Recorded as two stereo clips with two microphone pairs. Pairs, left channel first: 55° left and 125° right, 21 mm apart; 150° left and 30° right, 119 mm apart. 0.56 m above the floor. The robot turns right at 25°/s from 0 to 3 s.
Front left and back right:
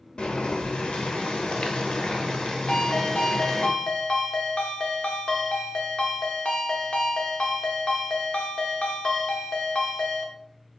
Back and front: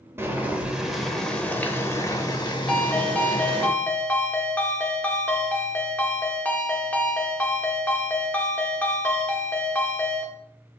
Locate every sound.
0.2 s boiling: 40° left, 0.7 m; by 3.7 s 110° left, 0.7 m
2.7 s a ringtone: 70° left, 0.9 m; by 10.3 s 75° left, 0.9 m